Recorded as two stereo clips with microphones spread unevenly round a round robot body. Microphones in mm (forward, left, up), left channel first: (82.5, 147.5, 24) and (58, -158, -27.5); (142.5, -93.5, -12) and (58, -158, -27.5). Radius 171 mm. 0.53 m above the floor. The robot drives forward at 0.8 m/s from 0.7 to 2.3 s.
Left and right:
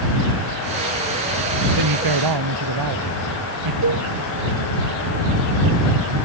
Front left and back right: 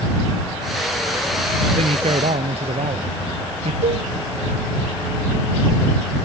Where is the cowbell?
150° right.